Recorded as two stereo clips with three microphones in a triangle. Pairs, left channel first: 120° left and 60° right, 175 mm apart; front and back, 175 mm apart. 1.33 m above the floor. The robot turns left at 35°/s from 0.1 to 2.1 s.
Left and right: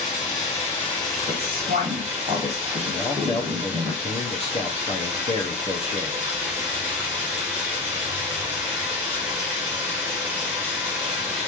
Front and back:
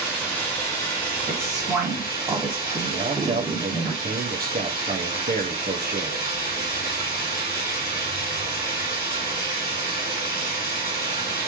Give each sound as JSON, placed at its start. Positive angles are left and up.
{"t": 0.0, "sound": "running water", "azimuth_deg": 90, "distance_m": 1.7}
{"t": 1.3, "sound": "a woman speaking", "azimuth_deg": -80, "distance_m": 1.5}
{"t": 2.9, "sound": "a man speaking", "azimuth_deg": 165, "distance_m": 0.7}